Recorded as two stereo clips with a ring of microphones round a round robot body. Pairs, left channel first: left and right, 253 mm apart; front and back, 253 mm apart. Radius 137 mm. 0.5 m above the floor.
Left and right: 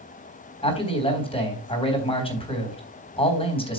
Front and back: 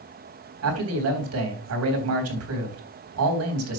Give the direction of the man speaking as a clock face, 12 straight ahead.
7 o'clock.